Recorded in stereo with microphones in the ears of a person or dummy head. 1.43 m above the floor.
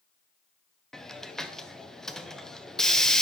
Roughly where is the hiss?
Centre.